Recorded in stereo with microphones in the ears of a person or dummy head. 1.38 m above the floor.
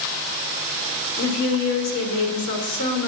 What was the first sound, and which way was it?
A woman speaking, 55° left (ahead or behind).